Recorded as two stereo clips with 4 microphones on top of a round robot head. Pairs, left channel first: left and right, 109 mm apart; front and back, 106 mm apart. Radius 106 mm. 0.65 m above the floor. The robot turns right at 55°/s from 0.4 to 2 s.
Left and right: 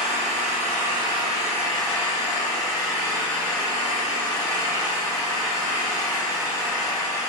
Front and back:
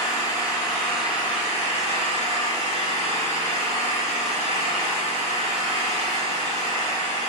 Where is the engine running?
105° right, 5 m; by 7.3 s 20° right, 5 m.